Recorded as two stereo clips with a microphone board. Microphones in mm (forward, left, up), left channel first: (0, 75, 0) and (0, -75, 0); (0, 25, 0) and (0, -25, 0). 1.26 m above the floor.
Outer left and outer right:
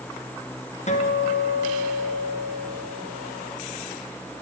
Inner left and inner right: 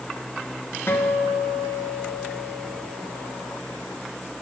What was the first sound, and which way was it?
A guitar, 50° left (ahead or behind).